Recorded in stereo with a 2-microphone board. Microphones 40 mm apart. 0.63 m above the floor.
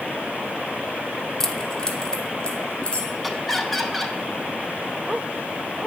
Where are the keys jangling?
10° left (ahead or behind), 1.1 m; by 3.1 s 25° left (ahead or behind), 3 m.